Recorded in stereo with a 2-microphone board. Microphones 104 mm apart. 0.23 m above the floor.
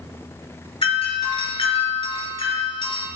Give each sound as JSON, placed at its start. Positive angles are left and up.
{"t": 0.8, "sound": "a doorbell", "side_deg": 50, "distance_m": 5.0}